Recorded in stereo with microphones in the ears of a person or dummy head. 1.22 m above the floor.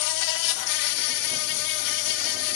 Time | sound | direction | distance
0.0 | an insect | 65° left (ahead or behind) | 0.8 m